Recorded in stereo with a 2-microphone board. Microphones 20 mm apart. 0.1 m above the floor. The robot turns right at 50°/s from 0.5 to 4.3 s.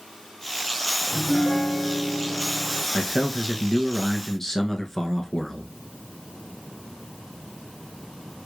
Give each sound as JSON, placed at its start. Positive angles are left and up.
{"t": 1.1, "sound": "a piano", "azimuth_deg": -160, "distance_m": 1.6}
{"t": 2.9, "sound": "a man speaking", "side_deg": 5, "distance_m": 1.1}